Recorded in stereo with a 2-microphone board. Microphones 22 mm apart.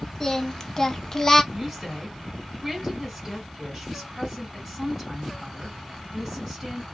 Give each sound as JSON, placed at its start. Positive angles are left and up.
{"t": 0.2, "sound": "singing", "side_deg": 25, "distance_m": 0.6}
{"t": 1.5, "sound": "a woman speaking", "side_deg": -5, "distance_m": 1.5}